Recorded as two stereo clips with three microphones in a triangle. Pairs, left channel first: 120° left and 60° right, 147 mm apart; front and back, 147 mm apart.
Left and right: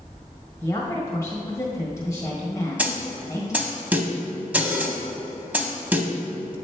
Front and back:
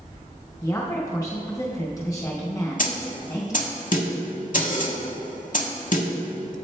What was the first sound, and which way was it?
A woman speaking, 55° left.